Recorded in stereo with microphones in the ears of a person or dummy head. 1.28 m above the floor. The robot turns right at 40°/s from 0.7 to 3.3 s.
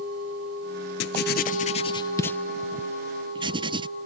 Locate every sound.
1.0 s writing: 60° left (ahead or behind); by 3.9 s 20° right (ahead or behind)